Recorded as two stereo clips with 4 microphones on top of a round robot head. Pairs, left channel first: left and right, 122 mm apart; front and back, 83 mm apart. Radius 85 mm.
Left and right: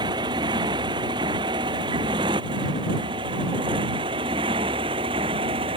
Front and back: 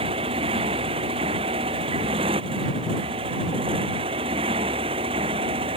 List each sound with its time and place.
0.0 s a motorcycle: 150° right; by 5.8 s 145° right